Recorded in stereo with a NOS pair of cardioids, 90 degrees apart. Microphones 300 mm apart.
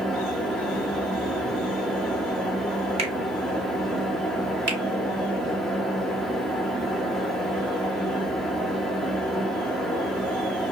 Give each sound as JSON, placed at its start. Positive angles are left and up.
{"t": 0.0, "sound": "a fan", "azimuth_deg": 0, "distance_m": 0.8}
{"t": 3.0, "sound": "a finger snap", "azimuth_deg": -20, "distance_m": 1.0}
{"t": 4.7, "sound": "a finger snap", "azimuth_deg": -35, "distance_m": 1.4}